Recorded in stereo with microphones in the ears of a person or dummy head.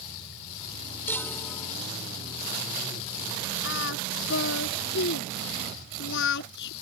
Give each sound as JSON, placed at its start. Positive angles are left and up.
{"t": 1.1, "sound": "a chime", "side_deg": 20}
{"t": 3.6, "sound": "singing", "side_deg": 80}